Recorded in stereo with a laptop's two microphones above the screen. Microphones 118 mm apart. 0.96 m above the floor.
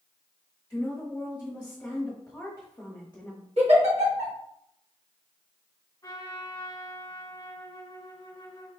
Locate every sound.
0.7 s a woman speaking: 15° left (ahead or behind), 1.7 m
3.6 s a giggle: 65° right (ahead or behind), 1.5 m
6.0 s a trumpet: 30° left (ahead or behind), 1.3 m